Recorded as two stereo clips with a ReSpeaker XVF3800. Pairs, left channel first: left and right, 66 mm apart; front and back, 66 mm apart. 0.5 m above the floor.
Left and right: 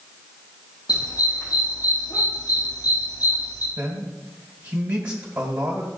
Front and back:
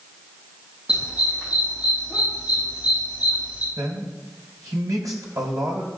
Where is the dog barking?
105° left, 5.5 m; by 3.7 s 115° left, 4 m.